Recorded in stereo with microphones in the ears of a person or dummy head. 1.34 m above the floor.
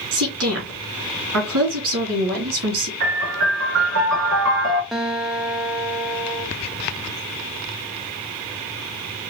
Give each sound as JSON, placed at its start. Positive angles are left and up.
{"t": 0.1, "sound": "a woman speaking", "side_deg": -65, "distance_m": 2.5}
{"t": 3.0, "sound": "a piano", "side_deg": -65, "distance_m": 3.0}
{"t": 4.9, "sound": "a guitar", "side_deg": 0, "distance_m": 0.6}